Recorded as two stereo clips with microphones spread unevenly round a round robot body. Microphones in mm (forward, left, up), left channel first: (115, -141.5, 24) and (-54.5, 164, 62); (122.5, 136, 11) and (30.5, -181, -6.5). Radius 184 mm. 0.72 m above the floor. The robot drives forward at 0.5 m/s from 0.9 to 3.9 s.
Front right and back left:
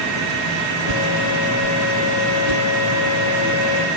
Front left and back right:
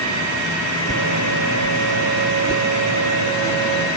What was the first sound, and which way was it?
A whoosh, 145° left.